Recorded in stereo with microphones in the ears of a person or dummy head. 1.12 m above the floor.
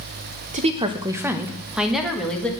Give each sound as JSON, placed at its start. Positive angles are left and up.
{"t": 0.5, "sound": "a woman speaking", "side_deg": -35, "distance_m": 0.8}